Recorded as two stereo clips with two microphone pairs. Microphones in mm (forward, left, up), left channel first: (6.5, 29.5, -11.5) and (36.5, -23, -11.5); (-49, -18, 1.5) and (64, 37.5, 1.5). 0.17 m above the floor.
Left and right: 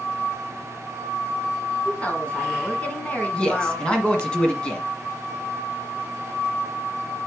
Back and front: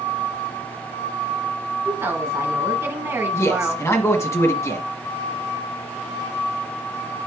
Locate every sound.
1.9 s a woman speaking: 80° left, 1.7 m
3.3 s a man speaking: 175° left, 1.4 m